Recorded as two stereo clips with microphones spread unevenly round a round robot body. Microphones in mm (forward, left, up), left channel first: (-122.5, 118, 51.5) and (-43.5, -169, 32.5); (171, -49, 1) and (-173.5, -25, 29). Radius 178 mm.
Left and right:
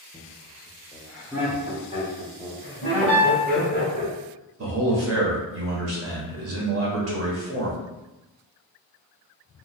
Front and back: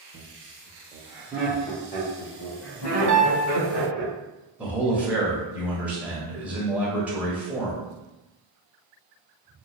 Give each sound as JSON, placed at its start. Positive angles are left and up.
{"t": 0.1, "sound": "laughter", "azimuth_deg": -175, "distance_m": 1.2}
{"t": 3.1, "sound": "a piano", "azimuth_deg": 85, "distance_m": 1.7}
{"t": 4.6, "sound": "a man speaking", "azimuth_deg": -95, "distance_m": 1.2}